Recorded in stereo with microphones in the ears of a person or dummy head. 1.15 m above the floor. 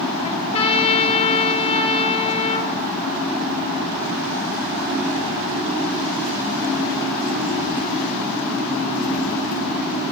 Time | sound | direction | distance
0.2 | a trumpet | 35° left (ahead or behind) | 1.9 m